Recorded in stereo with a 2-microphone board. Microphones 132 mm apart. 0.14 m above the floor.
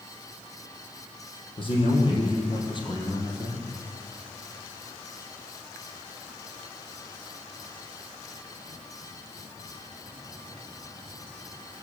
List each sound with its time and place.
1.6 s a man speaking: 45° left (ahead or behind), 6 m; by 3.7 s 30° left (ahead or behind), 4.5 m